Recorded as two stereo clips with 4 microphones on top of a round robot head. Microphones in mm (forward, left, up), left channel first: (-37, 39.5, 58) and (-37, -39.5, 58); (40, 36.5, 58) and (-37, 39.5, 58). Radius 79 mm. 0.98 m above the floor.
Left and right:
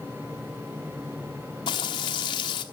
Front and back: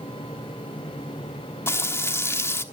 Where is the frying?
55° left, 1.1 m.